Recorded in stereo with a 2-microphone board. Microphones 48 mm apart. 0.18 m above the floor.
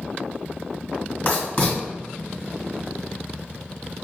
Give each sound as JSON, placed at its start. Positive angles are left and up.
{"t": 1.2, "sound": "writing", "side_deg": 35, "distance_m": 2.0}